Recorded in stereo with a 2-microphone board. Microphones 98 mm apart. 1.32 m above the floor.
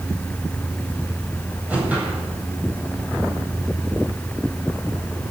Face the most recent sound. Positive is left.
turn(degrees=-15)  # may be behind; listen again after turning